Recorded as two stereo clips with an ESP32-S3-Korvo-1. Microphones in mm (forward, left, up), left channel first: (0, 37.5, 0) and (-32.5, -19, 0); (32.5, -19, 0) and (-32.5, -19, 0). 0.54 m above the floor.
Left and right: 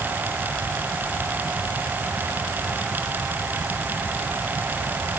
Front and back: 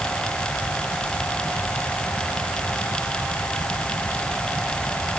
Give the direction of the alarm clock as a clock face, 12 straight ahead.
No alarm clock in this recording.